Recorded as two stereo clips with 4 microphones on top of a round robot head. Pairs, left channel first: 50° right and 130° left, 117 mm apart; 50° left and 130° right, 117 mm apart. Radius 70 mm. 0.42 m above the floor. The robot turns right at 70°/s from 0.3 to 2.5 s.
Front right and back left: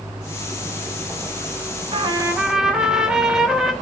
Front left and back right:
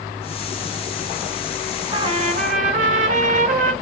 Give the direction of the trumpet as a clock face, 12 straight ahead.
6 o'clock.